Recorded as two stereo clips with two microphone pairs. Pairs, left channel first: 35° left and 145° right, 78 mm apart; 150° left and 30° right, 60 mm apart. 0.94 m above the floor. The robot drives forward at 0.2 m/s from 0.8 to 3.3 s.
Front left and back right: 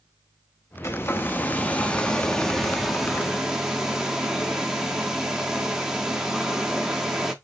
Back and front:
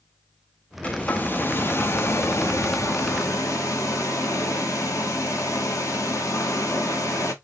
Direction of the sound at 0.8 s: 85° left.